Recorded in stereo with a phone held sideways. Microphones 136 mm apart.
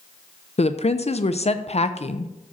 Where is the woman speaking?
50° left (ahead or behind), 0.6 m.